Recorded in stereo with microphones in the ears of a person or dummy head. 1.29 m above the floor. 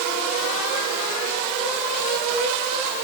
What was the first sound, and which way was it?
Only background noise.